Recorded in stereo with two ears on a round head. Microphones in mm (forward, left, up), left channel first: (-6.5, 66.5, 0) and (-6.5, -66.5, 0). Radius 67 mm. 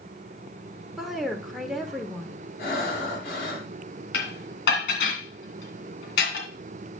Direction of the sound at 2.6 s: 80° left.